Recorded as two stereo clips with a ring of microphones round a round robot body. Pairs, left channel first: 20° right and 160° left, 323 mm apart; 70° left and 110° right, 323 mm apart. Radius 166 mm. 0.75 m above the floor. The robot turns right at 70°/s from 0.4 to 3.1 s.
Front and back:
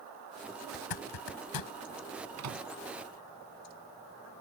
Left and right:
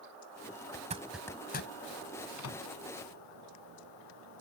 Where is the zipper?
55° right; by 1.7 s 15° left.